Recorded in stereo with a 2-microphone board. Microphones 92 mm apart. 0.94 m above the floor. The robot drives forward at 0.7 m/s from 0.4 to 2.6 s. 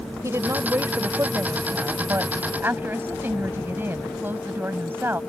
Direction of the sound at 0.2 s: 30° right (ahead or behind).